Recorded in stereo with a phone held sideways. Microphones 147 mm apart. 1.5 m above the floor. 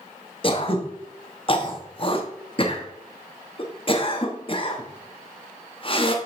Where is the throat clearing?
35° left (ahead or behind), 1.1 m.